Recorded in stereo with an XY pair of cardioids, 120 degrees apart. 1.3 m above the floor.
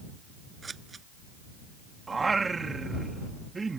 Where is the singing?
20° right.